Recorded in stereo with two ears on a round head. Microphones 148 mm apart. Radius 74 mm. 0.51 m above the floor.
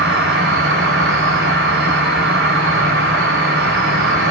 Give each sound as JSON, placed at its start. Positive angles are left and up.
{"t": 0.0, "sound": "an insect", "side_deg": -75, "distance_m": 1.0}